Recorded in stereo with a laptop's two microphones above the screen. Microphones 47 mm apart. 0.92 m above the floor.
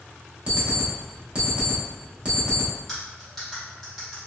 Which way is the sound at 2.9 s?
5° left (ahead or behind).